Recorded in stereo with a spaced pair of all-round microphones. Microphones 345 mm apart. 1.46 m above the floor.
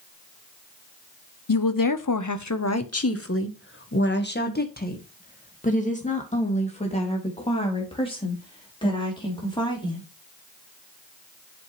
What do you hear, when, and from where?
1.5 s a woman speaking: 70° left (ahead or behind), 0.8 m; by 10.0 s 15° left (ahead or behind), 4.5 m